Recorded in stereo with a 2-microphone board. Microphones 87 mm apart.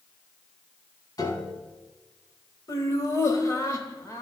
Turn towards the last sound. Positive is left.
turn(degrees=40)  # may be behind; listen again after turning